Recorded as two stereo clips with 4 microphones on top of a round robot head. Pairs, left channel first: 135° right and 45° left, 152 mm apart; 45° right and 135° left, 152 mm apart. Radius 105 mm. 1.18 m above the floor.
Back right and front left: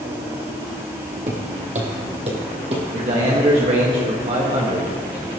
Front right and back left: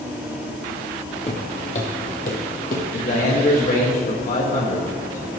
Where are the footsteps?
5° left, 2.0 m; by 2.9 s 10° right, 2.5 m.